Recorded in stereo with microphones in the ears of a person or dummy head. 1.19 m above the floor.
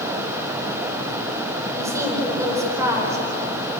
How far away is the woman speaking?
About 5 m.